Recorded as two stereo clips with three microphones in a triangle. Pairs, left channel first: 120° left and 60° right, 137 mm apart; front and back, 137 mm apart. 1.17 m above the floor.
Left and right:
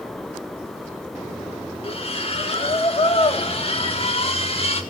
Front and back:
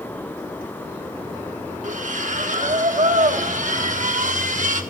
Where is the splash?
165° left, 1.8 m.